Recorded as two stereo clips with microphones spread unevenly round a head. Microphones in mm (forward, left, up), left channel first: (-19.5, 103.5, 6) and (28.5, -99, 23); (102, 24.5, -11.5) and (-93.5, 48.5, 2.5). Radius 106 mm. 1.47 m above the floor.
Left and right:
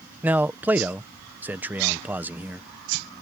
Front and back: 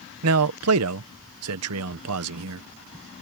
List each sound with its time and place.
0.2 s a man speaking: 160° right